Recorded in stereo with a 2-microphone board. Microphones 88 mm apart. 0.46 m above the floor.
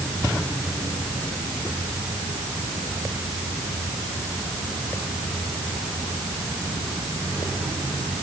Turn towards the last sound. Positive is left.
No sound to turn to.